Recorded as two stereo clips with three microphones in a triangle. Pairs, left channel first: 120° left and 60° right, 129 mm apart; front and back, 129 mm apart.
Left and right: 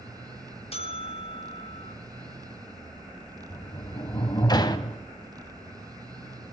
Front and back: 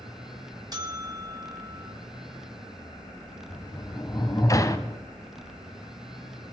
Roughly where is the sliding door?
Ahead left.